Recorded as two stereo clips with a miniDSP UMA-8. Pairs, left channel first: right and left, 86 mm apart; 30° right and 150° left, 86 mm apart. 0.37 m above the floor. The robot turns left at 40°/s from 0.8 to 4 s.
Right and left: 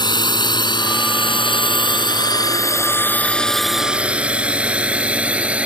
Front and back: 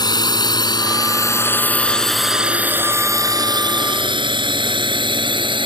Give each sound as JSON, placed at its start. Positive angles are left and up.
{"t": 0.0, "sound": "a drone", "azimuth_deg": -65}